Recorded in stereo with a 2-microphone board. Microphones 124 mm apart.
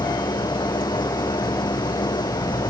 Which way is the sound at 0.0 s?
40° left (ahead or behind).